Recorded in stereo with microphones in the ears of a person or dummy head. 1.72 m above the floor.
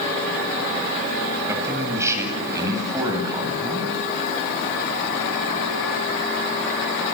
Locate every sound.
1.5 s a man speaking: 15° right (ahead or behind), 8 m; by 4.0 s 20° right (ahead or behind), 10 m